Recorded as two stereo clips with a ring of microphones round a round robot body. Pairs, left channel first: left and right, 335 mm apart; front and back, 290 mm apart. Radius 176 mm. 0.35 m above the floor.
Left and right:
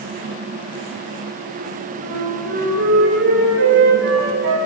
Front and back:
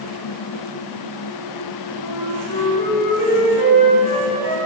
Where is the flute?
35° right, 7.5 m.